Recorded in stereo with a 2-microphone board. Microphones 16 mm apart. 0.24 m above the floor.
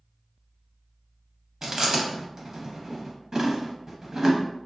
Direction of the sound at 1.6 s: 30° right (ahead or behind).